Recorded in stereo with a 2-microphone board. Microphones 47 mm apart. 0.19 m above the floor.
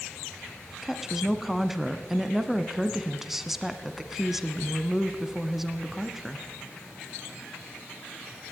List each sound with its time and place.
0.8 s a woman speaking: 5° right (ahead or behind), 1.6 m